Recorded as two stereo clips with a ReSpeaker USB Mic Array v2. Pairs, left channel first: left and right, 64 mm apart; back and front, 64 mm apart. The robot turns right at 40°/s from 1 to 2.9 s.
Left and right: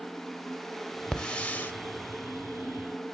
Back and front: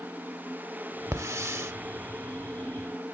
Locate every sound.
1.1 s a hiss: 10° left, 0.9 m; by 1.7 s 35° left, 0.9 m